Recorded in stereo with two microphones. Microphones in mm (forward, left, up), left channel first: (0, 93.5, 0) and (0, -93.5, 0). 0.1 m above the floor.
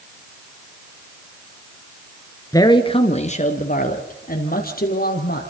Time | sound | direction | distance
2.5 | a man speaking | 20° left (ahead or behind) | 1.8 m